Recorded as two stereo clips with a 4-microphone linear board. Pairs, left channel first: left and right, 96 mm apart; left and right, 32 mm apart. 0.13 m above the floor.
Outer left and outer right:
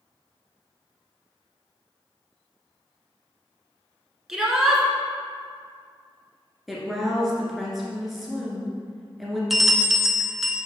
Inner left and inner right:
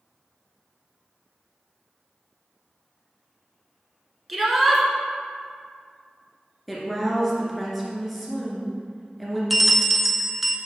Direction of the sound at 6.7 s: Centre (ahead or behind).